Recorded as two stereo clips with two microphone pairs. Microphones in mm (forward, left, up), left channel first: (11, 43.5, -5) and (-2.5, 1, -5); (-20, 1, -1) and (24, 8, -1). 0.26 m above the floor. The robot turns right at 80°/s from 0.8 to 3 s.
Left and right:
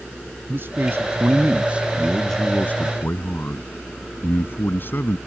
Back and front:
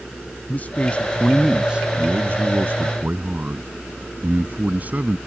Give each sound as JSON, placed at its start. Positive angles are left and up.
{"t": 0.5, "sound": "a man speaking", "azimuth_deg": -125}